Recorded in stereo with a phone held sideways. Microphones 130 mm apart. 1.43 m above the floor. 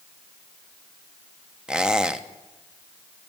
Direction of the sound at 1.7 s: 5° right (ahead or behind).